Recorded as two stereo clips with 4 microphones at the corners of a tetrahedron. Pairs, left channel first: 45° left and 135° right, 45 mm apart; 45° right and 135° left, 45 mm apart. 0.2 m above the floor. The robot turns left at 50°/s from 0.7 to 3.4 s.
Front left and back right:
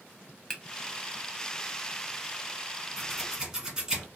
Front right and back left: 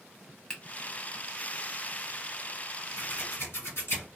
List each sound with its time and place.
0.5 s a finger snap: 15° right, 0.8 m
3.0 s scissors: 40° right, 1.5 m; by 4.1 s 65° right, 1.5 m